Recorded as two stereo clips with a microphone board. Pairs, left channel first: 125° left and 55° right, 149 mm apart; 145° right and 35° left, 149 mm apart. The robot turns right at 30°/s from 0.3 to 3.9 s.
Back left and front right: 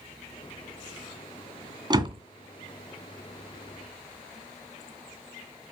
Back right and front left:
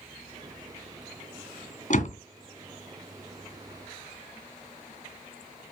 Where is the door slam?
115° right, 2.5 m; by 2.2 s 105° right, 2.5 m.